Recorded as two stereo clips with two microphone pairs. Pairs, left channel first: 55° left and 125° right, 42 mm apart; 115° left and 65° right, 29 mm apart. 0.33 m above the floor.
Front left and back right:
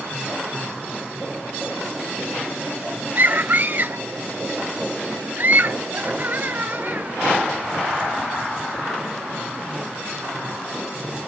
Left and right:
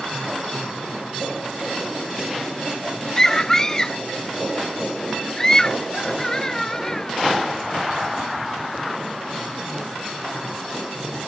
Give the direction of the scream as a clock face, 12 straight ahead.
6 o'clock.